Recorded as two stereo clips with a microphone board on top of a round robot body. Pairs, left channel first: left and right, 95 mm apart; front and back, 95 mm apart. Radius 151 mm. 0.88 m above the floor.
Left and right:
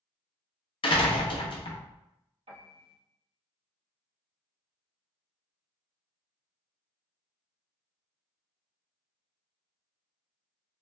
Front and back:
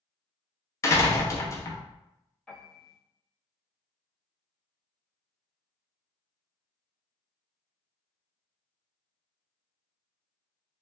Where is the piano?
85° right, 1.1 m.